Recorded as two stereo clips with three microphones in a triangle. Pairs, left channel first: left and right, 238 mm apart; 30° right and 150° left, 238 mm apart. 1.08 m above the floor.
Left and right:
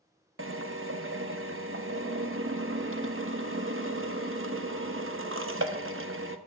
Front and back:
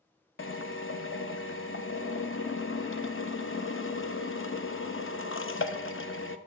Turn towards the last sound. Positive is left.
turn(degrees=-60)